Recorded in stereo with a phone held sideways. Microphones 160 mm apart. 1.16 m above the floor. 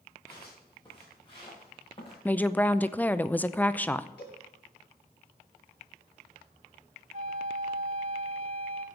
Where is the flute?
50° right (ahead or behind), 2.5 m.